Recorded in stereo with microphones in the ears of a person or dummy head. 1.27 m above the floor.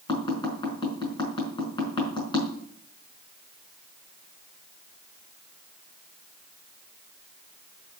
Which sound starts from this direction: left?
Tapping, at 0.1 s.